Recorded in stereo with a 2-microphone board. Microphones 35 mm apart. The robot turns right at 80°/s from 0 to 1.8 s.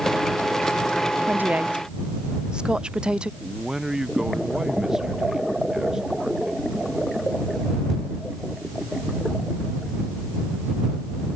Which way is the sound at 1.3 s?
70° right (ahead or behind).